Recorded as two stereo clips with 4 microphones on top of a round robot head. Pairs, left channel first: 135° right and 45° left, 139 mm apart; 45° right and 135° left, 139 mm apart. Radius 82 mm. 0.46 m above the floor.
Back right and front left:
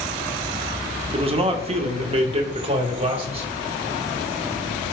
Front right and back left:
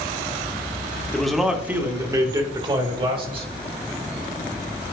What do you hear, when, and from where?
1.1 s a man speaking: 40° left, 0.9 m; by 3.5 s 90° left, 1.9 m